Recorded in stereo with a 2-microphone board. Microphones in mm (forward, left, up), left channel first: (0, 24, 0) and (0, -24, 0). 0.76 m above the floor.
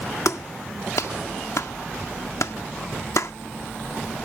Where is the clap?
75° left (ahead or behind).